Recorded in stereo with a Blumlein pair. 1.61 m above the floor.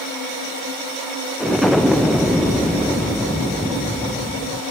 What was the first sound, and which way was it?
An explosion, 5° left.